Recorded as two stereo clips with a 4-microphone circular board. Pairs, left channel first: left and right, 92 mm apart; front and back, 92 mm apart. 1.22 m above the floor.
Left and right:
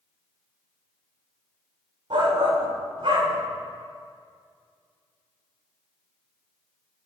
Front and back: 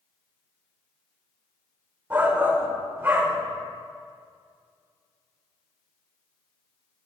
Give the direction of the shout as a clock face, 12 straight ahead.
4 o'clock.